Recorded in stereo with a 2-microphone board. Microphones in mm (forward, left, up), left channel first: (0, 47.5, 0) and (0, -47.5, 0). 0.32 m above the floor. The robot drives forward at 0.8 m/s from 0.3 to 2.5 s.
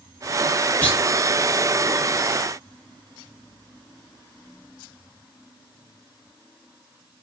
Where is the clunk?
20° left (ahead or behind), 2 m.